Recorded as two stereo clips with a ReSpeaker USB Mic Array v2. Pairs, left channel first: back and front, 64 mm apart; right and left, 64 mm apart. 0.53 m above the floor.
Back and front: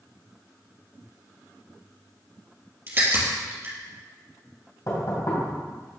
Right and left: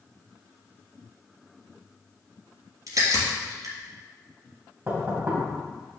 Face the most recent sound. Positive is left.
turn(degrees=150)